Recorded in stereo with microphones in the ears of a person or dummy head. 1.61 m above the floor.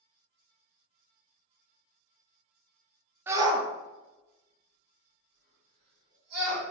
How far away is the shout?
About 0.5 m.